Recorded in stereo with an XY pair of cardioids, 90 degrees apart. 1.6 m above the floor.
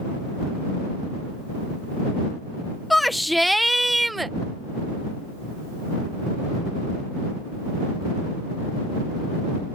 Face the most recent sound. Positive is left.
turn(degrees=-20)